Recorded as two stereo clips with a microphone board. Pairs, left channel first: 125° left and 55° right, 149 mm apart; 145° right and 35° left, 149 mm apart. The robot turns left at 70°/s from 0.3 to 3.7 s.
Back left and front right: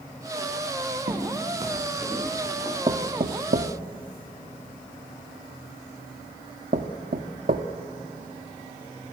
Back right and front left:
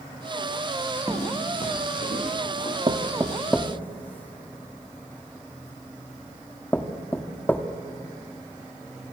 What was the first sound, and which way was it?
Footsteps, 60° right.